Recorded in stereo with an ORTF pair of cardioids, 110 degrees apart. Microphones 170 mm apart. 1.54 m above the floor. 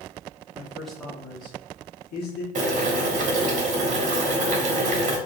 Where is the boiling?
50° right, 1.2 m.